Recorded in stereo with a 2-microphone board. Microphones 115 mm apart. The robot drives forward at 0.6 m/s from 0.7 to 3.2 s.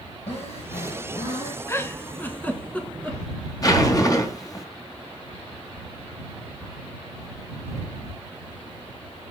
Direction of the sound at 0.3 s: 65° left (ahead or behind).